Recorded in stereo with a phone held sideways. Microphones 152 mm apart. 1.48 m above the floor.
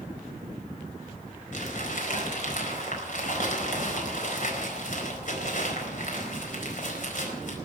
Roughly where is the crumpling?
Left.